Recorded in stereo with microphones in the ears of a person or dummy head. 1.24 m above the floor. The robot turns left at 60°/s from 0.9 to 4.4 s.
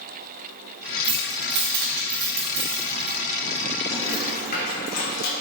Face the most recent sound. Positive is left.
turn(degrees=50)  # may be behind; listen again after turning